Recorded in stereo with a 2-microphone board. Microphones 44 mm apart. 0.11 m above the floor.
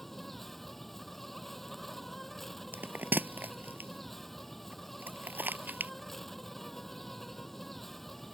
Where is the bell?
55° right (ahead or behind).